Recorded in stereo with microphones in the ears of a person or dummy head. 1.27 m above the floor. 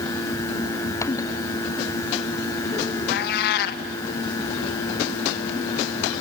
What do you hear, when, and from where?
3.1 s a cat meowing: 60° left (ahead or behind), 0.9 m